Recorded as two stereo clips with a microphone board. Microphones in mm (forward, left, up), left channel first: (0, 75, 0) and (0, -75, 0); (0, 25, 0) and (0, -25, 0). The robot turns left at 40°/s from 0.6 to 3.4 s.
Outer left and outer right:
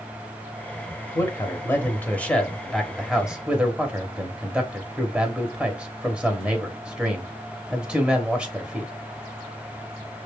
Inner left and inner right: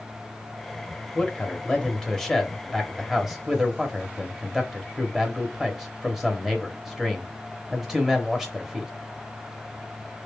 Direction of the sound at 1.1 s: 20° left (ahead or behind).